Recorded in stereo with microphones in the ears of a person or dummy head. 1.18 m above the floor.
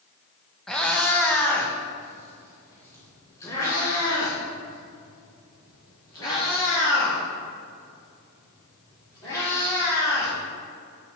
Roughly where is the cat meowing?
Centre.